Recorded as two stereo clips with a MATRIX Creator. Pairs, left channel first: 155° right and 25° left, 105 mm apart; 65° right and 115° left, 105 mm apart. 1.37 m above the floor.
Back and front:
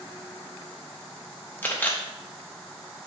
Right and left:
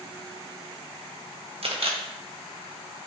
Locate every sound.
1.6 s a camera shutter: 130° left, 1.2 m